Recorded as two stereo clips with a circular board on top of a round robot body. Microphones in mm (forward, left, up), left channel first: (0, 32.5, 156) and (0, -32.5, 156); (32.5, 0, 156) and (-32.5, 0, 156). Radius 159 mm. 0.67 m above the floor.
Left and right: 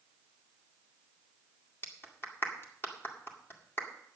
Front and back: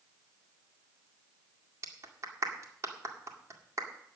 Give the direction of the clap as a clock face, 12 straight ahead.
7 o'clock.